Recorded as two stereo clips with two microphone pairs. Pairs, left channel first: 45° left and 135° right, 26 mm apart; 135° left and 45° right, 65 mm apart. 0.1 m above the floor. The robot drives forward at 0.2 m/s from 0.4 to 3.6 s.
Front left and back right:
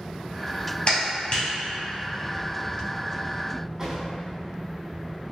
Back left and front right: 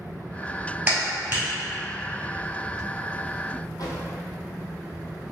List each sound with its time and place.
0.9 s a clap: 15° left, 1.6 m
3.8 s a drawer: 155° left, 0.9 m